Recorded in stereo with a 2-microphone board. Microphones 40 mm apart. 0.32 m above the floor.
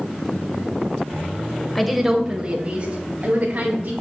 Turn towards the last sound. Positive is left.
turn(degrees=-55)  # may be behind; listen again after turning